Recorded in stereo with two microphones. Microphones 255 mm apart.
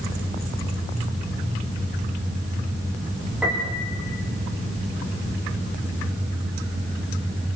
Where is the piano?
5° right (ahead or behind), 8.5 m.